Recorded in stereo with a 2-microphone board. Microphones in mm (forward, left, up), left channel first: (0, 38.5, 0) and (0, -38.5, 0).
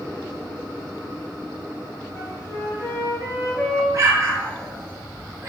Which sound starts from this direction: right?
An explosion, at 3.9 s.